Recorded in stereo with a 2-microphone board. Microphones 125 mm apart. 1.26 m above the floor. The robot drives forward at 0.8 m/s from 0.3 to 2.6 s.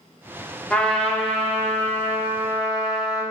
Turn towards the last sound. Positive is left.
turn(degrees=5)  # may be behind; listen again after turning